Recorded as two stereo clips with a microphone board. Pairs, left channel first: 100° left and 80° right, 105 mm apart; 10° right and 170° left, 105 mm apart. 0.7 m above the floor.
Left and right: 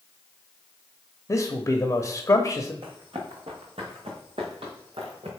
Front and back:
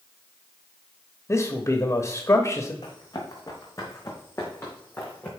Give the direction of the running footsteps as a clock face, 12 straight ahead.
2 o'clock.